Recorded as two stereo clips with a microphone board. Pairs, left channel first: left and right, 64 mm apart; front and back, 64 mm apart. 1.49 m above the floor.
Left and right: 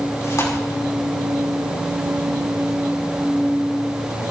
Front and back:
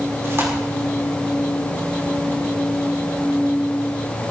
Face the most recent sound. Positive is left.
turn(degrees=130)